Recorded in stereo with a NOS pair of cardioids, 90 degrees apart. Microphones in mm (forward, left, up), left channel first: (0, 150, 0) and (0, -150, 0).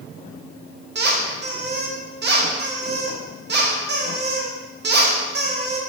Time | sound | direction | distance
0.9 | a squeak | 40° right | 1.4 m